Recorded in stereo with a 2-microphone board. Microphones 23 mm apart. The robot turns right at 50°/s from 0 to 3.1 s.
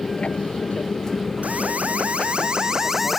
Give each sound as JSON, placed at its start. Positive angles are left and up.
{"t": 0.0, "sound": "an aircraft", "side_deg": 30}
{"t": 1.4, "sound": "an alarm", "azimuth_deg": -100}